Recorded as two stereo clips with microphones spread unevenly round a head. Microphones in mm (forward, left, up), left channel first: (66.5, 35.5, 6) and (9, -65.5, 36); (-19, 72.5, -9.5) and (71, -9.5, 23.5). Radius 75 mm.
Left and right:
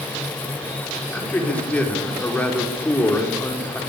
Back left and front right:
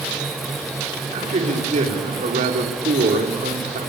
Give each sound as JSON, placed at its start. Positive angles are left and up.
{"t": 1.1, "sound": "a man speaking", "azimuth_deg": -20, "distance_m": 5.0}